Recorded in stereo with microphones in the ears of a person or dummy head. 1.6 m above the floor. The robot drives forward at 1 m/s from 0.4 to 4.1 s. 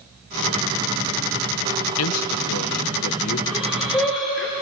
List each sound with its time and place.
2.0 s a man speaking: 80° left, 1.4 m; by 3.4 s 50° left (ahead or behind), 1.8 m
3.5 s breathing: 5° left (ahead or behind), 4.5 m